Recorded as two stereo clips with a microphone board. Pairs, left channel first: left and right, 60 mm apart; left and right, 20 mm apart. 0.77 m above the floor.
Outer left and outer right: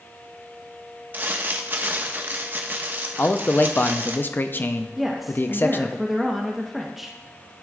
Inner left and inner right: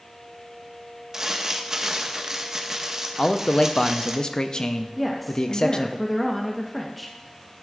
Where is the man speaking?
35° left (ahead or behind), 0.5 m.